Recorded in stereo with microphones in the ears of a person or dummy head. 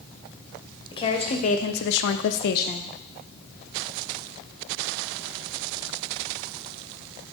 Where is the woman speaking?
25° left (ahead or behind), 1.0 m; by 2.8 s 40° left (ahead or behind), 0.6 m.